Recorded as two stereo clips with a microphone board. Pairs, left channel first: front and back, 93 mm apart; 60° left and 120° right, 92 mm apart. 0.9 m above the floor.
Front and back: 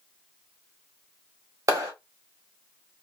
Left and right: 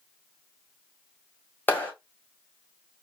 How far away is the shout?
I don't hear a shout.